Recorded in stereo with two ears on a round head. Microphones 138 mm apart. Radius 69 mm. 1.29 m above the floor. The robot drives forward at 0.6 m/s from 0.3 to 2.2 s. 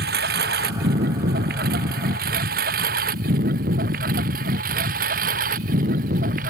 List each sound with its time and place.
0.0 s a lawn mower: 75° right (ahead or behind); by 6.5 s 60° right (ahead or behind)